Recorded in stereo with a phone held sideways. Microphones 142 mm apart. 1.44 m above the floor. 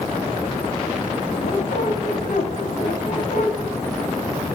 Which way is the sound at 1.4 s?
70° left (ahead or behind).